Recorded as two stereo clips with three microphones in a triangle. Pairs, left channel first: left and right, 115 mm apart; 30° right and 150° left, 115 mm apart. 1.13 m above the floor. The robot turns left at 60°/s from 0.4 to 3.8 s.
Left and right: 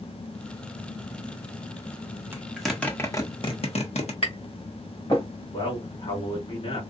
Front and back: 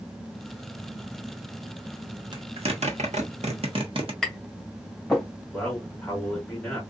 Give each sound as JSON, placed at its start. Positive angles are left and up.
{"t": 2.3, "sound": "a zipper", "azimuth_deg": -160, "distance_m": 1.2}
{"t": 4.2, "sound": "tapping", "azimuth_deg": 55, "distance_m": 2.0}
{"t": 5.5, "sound": "a man speaking", "azimuth_deg": 50, "distance_m": 2.5}